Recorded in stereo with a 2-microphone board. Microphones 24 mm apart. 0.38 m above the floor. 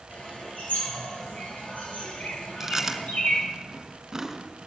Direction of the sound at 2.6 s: 20° right (ahead or behind).